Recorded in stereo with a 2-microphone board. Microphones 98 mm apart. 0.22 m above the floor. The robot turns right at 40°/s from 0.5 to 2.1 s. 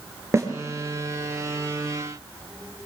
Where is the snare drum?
30° right (ahead or behind), 4.5 m.